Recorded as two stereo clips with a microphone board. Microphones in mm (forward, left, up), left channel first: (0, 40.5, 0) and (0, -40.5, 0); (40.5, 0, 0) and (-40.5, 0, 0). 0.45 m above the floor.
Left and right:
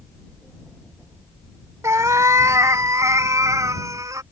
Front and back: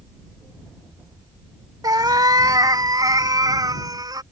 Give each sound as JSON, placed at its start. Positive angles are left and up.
{"t": 1.8, "sound": "a cat meowing", "azimuth_deg": -140}